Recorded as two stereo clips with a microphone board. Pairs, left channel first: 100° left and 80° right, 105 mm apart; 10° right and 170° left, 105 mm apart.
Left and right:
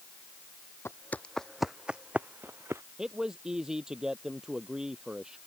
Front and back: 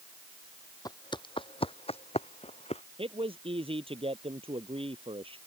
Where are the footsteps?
35° left; by 2.8 s 15° right.